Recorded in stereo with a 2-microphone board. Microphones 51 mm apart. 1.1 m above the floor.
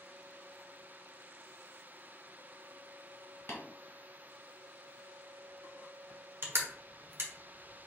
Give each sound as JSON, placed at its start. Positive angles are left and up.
{"t": 3.5, "sound": "tapping", "side_deg": 50, "distance_m": 1.6}
{"t": 6.4, "sound": "crushing", "side_deg": -55, "distance_m": 1.1}